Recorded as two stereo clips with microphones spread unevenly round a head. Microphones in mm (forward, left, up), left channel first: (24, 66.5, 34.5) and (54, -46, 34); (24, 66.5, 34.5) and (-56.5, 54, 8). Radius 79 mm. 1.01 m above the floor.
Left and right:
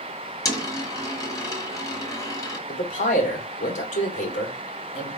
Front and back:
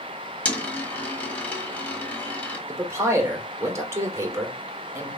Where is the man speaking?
135° left, 2 m.